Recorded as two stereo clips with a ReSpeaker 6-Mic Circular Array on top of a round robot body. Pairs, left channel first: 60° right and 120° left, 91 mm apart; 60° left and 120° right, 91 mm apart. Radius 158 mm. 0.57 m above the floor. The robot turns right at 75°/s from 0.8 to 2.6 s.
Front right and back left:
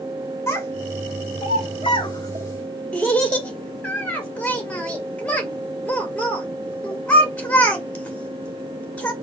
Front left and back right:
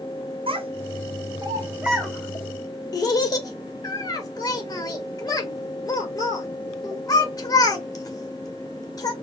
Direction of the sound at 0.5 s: 120° right.